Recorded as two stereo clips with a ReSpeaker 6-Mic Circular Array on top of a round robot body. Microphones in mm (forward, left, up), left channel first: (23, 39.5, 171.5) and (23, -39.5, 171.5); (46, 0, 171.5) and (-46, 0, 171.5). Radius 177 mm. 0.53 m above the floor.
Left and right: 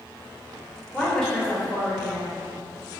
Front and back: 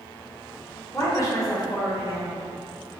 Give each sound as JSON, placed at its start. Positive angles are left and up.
{"t": 0.9, "sound": "a woman speaking", "azimuth_deg": 10, "distance_m": 1.4}